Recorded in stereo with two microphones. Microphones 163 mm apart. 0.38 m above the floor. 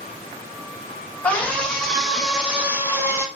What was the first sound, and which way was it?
A scream, 10° left (ahead or behind).